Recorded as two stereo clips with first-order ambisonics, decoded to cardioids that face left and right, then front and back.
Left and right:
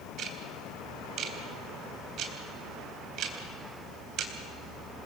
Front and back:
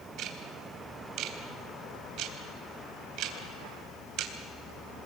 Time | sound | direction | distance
0.2 | ticking | 140° right | 3 m